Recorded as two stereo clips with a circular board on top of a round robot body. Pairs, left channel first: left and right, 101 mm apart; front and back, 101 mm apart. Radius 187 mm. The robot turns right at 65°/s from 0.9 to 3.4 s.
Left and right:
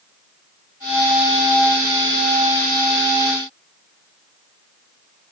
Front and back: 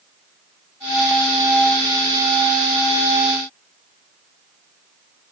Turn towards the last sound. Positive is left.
No sound to turn to.